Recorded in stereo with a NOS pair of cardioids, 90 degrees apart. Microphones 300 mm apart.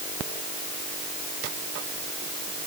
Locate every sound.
Only background noise.